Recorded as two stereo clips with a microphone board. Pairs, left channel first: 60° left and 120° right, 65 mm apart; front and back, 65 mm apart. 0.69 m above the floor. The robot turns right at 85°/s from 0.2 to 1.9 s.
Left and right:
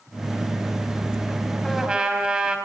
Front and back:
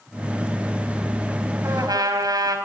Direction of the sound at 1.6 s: 140° left.